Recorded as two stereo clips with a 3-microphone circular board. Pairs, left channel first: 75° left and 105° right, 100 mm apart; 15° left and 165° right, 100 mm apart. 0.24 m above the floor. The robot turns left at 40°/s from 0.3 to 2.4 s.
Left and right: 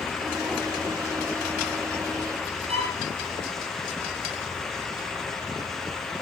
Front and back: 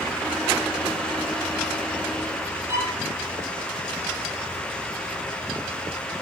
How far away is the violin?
About 8 m.